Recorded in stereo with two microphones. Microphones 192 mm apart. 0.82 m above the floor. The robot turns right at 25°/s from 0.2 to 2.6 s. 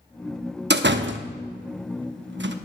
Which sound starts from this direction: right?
A door slam, at 0.7 s.